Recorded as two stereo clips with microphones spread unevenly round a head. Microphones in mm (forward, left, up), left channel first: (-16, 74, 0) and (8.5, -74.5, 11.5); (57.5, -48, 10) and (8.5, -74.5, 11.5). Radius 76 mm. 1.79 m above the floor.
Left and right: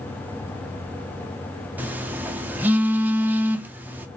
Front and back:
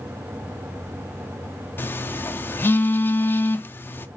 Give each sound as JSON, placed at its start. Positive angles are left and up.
{"t": 1.8, "sound": "a phone buzzing", "azimuth_deg": -10, "distance_m": 0.5}